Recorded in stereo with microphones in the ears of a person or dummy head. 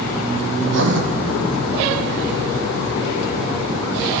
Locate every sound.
0.6 s writing: 70° right (ahead or behind), 0.8 m